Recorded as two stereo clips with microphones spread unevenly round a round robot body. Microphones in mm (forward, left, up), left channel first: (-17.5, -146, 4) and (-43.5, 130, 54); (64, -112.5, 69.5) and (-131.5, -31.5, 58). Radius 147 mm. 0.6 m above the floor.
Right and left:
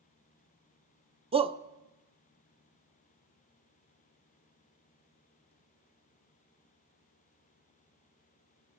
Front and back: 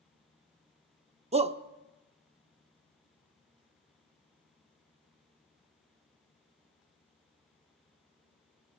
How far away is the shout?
About 0.6 m.